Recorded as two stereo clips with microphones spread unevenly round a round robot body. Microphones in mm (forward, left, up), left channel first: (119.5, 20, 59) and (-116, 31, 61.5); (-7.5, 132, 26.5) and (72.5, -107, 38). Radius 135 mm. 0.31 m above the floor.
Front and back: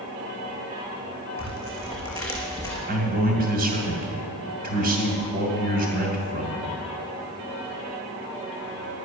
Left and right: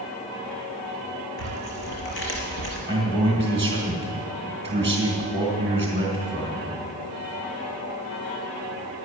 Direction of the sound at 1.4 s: 75° left.